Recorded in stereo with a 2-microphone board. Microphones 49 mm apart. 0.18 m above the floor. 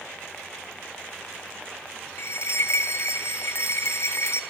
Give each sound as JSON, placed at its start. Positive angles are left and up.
{"t": 2.2, "sound": "a bell", "side_deg": 65, "distance_m": 2.0}